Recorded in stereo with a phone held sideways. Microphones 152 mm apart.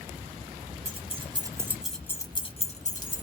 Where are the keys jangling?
45° right (ahead or behind), 0.9 m; by 3.2 s 60° left (ahead or behind), 1.0 m.